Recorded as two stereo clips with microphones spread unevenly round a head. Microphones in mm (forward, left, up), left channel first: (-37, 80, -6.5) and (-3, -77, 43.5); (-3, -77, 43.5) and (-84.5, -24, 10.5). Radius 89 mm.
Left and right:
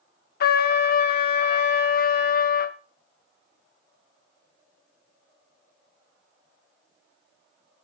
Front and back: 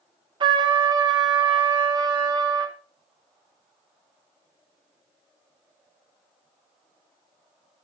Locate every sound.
0.4 s a trumpet: 110° left, 0.7 m